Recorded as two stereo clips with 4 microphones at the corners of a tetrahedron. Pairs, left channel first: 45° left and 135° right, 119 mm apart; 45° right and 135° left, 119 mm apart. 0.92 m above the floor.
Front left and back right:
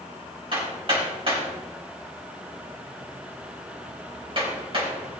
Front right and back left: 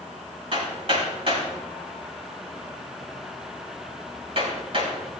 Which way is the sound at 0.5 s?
Straight behind.